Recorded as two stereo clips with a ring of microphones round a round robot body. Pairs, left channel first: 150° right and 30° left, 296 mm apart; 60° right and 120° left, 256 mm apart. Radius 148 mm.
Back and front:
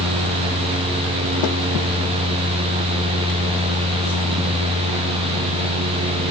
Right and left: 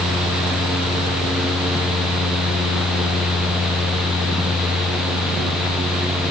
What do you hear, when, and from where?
Only background noise.